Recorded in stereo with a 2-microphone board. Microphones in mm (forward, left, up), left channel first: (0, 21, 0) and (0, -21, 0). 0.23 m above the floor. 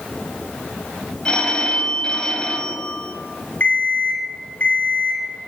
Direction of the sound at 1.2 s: 20° left (ahead or behind).